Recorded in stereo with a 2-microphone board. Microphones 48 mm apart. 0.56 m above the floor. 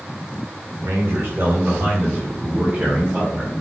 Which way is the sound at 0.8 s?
65° right (ahead or behind).